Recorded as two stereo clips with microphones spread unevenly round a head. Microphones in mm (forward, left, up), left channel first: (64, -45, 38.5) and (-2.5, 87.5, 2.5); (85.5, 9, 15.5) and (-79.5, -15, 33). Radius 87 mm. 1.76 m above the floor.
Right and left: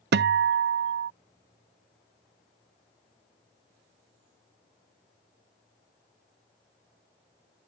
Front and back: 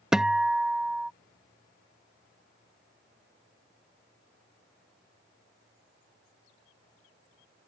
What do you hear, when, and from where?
0.1 s a guitar: 105° left